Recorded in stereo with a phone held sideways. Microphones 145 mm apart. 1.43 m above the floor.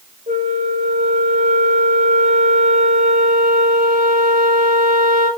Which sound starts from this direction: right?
A flute, at 0.3 s.